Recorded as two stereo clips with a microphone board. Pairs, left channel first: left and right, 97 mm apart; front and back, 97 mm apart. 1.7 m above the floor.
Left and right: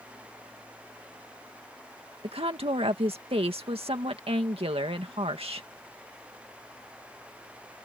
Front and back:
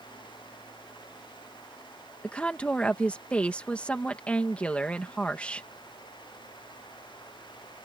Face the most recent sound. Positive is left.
turn(degrees=-75)